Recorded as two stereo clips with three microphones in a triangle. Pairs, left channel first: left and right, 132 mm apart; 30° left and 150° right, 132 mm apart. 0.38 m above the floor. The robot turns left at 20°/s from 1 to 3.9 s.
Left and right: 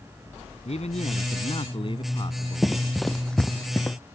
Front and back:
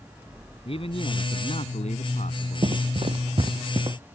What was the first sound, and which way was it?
A man speaking, 65° left.